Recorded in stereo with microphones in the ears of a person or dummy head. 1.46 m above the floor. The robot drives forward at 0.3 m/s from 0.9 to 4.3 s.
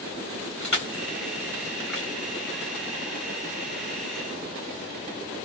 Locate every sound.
0.6 s crushing: 5° left (ahead or behind), 1.2 m